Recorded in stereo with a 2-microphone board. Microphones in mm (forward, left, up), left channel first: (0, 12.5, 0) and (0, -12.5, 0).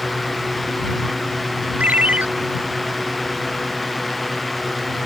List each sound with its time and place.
1.8 s a ringtone: 80° right